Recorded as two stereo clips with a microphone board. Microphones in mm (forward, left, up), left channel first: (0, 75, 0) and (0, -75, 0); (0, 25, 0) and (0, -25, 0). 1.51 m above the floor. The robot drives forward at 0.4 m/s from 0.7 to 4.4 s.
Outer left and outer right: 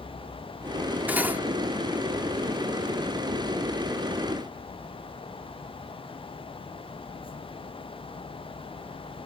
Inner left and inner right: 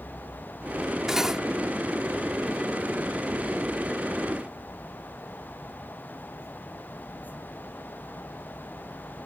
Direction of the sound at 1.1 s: 10° right (ahead or behind).